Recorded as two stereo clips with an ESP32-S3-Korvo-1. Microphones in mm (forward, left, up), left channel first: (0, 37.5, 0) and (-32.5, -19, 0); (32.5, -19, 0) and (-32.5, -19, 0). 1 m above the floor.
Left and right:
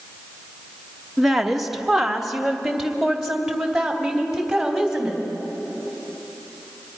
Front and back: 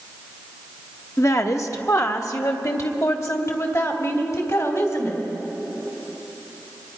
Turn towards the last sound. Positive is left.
turn(degrees=-35)